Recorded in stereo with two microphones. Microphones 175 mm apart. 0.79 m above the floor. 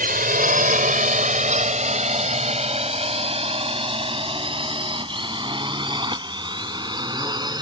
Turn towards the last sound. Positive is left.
turn(degrees=-25)  # may be behind; listen again after turning